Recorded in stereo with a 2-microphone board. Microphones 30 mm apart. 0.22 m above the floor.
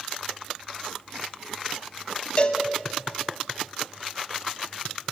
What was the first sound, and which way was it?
A cowbell, 40° left (ahead or behind).